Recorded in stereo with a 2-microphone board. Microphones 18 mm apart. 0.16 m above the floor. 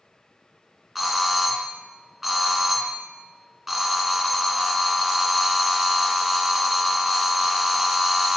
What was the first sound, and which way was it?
A doorbell, 5° right (ahead or behind).